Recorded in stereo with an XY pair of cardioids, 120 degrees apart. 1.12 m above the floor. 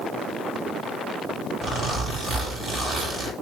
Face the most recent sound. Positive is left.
turn(degrees=-30)